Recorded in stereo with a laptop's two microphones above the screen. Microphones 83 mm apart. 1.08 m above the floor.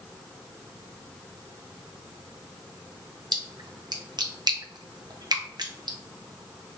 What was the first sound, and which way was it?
A splash, 60° right (ahead or behind).